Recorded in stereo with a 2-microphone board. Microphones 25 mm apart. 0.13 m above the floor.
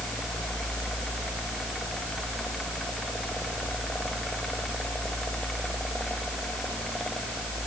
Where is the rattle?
No rattle in this recording.